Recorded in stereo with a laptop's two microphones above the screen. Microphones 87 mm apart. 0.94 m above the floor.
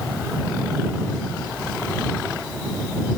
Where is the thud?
No thud in this recording.